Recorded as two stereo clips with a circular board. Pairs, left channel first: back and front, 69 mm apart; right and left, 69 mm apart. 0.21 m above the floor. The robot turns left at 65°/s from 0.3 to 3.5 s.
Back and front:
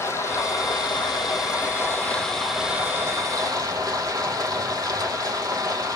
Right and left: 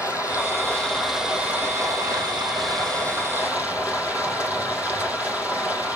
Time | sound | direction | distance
0.0 | running water | 130° right | 3 m